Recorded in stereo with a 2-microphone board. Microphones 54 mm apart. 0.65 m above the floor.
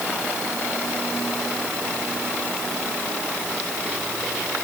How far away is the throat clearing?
No throat clearing in this recording.